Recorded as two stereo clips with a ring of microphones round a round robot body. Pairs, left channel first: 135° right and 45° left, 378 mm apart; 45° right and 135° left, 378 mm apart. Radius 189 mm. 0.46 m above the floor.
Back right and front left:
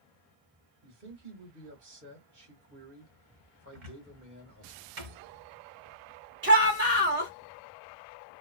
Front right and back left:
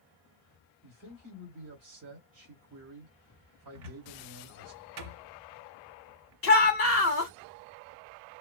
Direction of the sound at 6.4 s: 5° right.